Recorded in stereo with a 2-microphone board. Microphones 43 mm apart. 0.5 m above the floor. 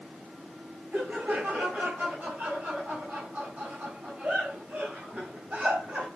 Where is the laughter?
40° right (ahead or behind), 2.5 m.